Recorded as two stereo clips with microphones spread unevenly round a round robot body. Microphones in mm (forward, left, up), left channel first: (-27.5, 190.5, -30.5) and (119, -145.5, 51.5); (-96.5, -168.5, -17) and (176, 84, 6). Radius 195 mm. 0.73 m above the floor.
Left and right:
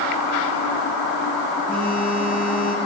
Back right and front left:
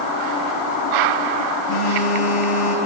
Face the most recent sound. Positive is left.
turn(degrees=-155)